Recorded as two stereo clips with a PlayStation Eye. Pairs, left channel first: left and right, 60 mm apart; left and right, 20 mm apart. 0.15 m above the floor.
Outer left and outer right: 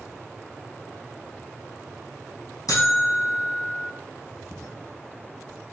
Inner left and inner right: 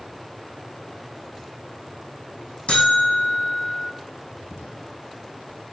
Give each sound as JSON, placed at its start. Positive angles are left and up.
{"t": 2.7, "sound": "a buzzer", "side_deg": 70, "distance_m": 4.5}